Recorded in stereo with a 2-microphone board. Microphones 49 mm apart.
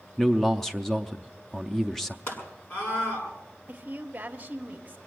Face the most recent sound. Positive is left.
turn(degrees=-25)  # may be behind; listen again after turning